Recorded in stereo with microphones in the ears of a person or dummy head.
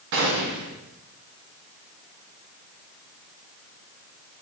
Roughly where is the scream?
I don't hear a scream.